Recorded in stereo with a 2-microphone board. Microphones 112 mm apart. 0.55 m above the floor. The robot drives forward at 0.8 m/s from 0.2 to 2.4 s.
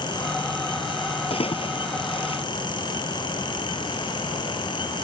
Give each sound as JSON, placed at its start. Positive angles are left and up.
{"t": 1.3, "sound": "a splash", "side_deg": 55}